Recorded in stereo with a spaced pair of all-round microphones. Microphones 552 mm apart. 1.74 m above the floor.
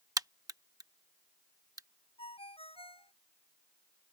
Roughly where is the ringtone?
Centre.